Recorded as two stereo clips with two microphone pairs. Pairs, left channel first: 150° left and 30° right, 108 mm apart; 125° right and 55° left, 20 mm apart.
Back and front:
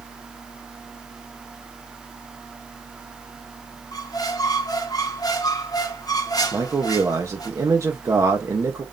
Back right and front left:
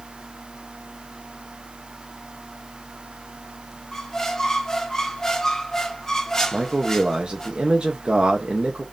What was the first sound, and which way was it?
A squeak, straight behind.